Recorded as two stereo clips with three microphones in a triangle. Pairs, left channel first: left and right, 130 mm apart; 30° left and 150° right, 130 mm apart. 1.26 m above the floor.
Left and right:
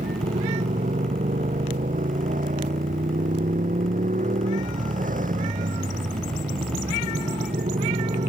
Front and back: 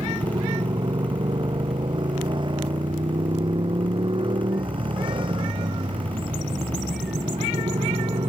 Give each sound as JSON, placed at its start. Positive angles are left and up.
{"t": 0.0, "sound": "a motorcycle", "azimuth_deg": -95}